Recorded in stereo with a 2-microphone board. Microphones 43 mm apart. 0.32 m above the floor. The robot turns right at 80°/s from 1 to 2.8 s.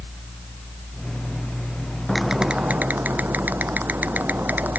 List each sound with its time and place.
2.1 s typing on a keyboard: 175° left; by 4.8 s 130° right